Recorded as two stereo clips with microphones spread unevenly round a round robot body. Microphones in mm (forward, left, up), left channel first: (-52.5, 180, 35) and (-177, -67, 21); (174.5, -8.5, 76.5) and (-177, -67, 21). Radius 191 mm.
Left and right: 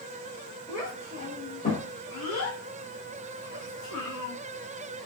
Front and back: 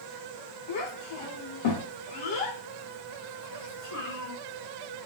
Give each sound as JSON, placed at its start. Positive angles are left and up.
{"t": 0.7, "sound": "a child speaking", "azimuth_deg": -25, "distance_m": 1.3}